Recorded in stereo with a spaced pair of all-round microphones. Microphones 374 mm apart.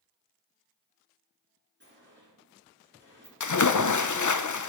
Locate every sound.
1.8 s a sliding door: 30° right (ahead or behind), 4 m
3.4 s a splash: 50° left (ahead or behind), 0.5 m